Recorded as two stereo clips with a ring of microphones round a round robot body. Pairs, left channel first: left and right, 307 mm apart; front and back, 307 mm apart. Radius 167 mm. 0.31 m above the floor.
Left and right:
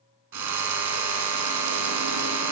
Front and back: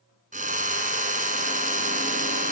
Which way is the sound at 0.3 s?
115° right.